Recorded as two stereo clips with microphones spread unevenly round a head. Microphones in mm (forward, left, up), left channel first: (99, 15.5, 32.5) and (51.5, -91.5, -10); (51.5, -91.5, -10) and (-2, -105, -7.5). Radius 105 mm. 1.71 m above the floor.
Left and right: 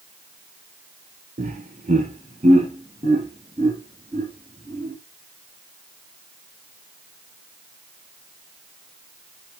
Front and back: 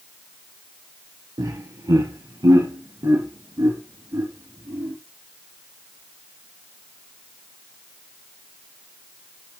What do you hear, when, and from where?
1.4 s laughter: 160° right, 1.5 m; by 4.9 s 175° right, 4 m